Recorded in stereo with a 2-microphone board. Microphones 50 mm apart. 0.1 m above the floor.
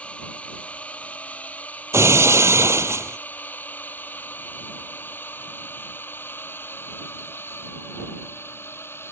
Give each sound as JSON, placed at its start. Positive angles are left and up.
{"t": 0.0, "sound": "a drone", "side_deg": 25}
{"t": 1.9, "sound": "breaking glass", "side_deg": -65}